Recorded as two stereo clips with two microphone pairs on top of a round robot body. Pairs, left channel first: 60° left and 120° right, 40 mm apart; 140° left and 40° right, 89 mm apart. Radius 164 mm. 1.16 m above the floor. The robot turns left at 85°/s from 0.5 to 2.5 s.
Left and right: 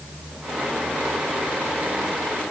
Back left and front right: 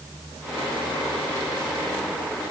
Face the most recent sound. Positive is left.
No sound to turn to.